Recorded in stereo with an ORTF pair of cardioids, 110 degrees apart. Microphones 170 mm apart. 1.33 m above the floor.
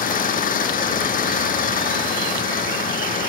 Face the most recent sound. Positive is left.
turn(degrees=55)